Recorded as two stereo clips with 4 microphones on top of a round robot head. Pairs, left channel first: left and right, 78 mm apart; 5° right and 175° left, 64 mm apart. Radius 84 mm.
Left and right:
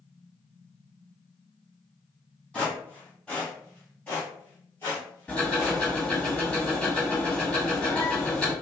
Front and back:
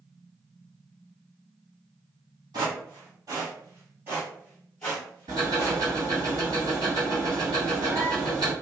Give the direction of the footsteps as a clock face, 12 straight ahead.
6 o'clock.